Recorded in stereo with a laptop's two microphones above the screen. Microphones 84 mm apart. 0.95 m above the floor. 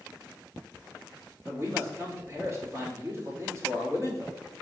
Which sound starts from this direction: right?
A man speaking, at 1.4 s.